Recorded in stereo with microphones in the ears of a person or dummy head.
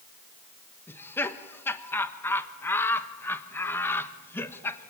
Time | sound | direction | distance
0.9 | laughter | 10° left (ahead or behind) | 1.4 m